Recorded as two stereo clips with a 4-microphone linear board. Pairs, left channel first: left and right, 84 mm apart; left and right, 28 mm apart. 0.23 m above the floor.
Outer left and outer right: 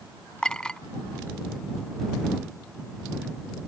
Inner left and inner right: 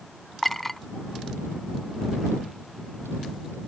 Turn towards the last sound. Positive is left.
turn(degrees=10)  # may be behind; listen again after turning